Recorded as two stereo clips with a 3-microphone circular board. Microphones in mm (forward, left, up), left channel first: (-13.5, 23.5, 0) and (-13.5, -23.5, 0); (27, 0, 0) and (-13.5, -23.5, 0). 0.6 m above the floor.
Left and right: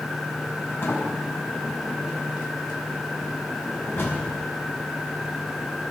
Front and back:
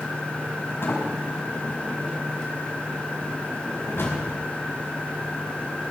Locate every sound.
0.8 s a sliding door: 60° left, 5 m